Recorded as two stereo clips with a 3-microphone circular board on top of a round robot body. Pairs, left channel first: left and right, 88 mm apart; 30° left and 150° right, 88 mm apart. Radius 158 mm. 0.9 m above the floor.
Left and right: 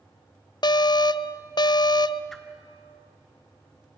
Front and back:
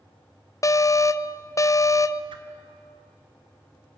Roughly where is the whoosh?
Behind.